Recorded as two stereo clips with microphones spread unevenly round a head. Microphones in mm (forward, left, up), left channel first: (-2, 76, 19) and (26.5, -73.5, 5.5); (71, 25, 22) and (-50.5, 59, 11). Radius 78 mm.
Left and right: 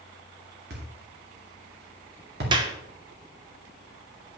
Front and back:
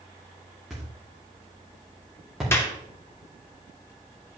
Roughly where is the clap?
Ahead right.